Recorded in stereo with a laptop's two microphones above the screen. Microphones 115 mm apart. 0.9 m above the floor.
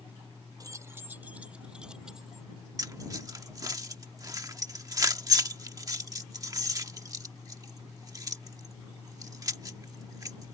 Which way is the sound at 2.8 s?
30° right (ahead or behind).